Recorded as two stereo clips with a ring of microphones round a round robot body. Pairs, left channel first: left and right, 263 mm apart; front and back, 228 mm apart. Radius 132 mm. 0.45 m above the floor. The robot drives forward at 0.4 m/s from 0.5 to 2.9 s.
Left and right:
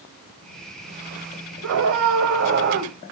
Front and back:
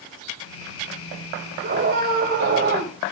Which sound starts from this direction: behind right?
A scream, at 1.6 s.